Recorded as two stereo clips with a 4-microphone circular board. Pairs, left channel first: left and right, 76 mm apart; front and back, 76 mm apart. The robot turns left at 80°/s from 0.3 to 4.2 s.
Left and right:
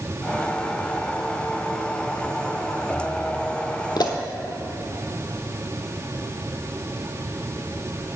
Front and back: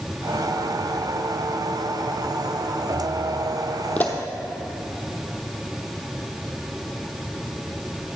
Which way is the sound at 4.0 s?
70° left.